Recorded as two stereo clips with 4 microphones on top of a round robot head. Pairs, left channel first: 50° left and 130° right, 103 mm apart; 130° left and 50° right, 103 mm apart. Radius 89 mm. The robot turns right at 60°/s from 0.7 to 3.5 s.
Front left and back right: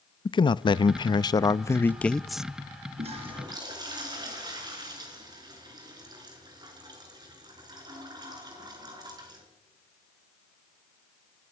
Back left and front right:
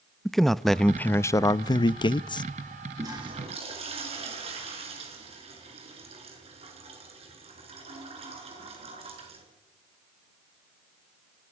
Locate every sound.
0.2 s a man speaking: 45° left, 0.7 m; by 2.4 s 150° left, 0.7 m
3.0 s a toilet flushing: 110° right, 5.5 m; by 9.4 s 80° right, 5.5 m